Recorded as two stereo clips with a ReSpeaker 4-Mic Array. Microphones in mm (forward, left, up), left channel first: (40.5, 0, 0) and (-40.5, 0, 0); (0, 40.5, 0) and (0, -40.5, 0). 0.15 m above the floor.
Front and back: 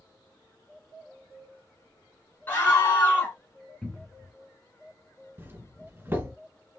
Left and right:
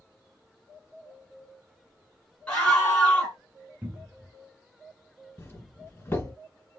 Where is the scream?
30° left, 1.5 m.